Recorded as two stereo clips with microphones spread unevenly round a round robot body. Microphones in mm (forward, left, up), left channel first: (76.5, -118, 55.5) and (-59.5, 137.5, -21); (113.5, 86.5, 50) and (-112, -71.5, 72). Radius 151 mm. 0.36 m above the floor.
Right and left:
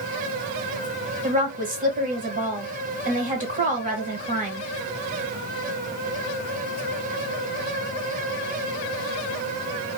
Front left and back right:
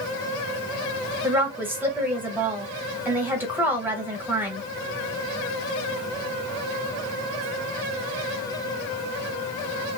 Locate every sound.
1.2 s a woman speaking: 130° left, 1.1 m